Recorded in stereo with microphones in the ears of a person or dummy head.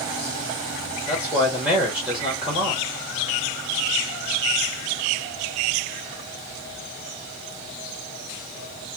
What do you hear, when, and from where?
1.1 s a man speaking: 5° right (ahead or behind), 1.1 m